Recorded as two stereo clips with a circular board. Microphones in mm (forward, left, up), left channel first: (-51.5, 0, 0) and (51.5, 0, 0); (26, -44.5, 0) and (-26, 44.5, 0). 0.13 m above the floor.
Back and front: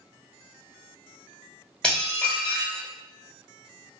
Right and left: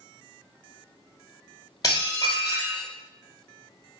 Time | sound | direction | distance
1.8 | dishes clattering | 100° right | 1.5 m